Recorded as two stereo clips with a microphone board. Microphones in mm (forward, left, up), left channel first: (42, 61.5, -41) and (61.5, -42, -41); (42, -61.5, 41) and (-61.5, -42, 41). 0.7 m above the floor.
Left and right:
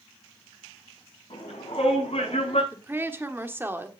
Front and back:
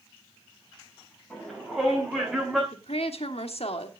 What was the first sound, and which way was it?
A shout, 75° left.